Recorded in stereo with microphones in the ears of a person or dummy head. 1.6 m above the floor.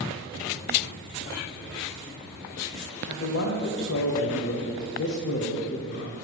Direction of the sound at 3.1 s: 60° left (ahead or behind).